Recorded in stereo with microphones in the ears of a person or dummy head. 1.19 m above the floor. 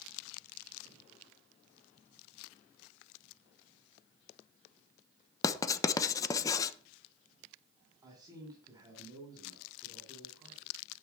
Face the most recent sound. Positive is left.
turn(degrees=-15)  # may be behind; listen again after turning